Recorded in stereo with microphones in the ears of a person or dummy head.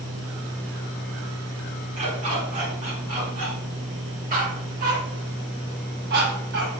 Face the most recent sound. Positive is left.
turn(degrees=-65)  # may be behind; listen again after turning